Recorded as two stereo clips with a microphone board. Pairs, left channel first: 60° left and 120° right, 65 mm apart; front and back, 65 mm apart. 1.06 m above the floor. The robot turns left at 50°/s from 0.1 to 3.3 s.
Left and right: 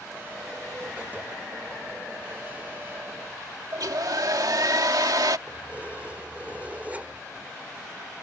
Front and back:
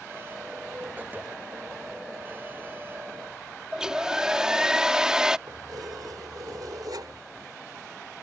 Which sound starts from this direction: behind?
Keys jangling, at 5.5 s.